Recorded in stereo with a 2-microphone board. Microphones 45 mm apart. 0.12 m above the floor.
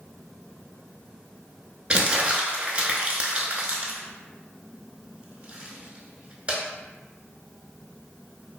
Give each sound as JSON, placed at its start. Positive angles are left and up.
{"t": 1.9, "sound": "crumpling", "side_deg": -25, "distance_m": 0.5}